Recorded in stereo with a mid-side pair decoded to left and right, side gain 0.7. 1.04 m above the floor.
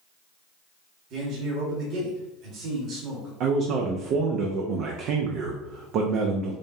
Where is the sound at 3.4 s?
55° right, 0.7 m.